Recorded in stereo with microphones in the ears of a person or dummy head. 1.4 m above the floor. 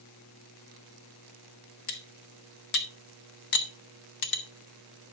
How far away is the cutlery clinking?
About 1.1 m.